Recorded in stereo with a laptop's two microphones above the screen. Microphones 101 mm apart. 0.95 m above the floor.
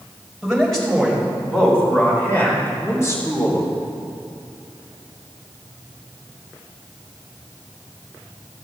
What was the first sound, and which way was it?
A man speaking, centre (ahead or behind).